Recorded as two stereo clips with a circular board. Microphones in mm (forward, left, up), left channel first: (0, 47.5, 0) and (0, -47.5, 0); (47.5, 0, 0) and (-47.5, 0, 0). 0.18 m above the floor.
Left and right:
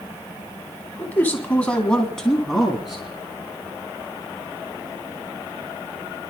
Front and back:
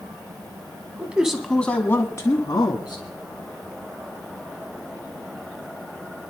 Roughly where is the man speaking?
Behind left.